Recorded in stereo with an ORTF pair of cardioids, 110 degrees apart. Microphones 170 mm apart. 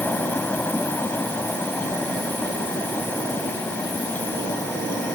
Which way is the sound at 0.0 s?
10° left.